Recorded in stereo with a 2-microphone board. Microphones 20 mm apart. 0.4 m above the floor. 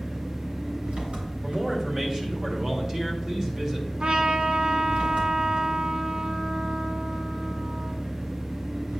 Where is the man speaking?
30° right (ahead or behind), 1.8 m.